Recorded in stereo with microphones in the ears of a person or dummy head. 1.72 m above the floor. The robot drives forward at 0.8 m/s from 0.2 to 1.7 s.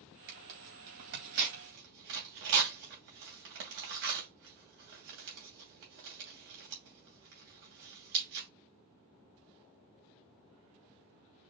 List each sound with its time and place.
0.3 s tearing paper: 55° right (ahead or behind), 3 m; by 8.5 s 60° right (ahead or behind), 2.5 m